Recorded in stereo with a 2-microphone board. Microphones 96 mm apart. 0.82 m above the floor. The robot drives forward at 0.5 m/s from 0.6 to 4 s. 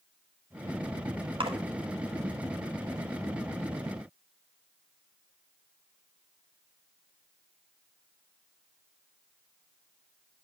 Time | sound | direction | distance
1.4 | a splash | 70° right (ahead or behind) | 2 m